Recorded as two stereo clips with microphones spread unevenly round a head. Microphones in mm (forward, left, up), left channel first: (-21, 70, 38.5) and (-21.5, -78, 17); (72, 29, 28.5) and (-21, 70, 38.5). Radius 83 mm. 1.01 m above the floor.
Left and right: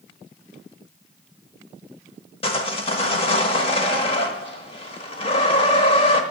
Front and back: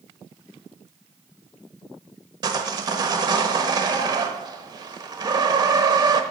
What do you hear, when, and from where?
2.4 s sawing: 125° left, 1.0 m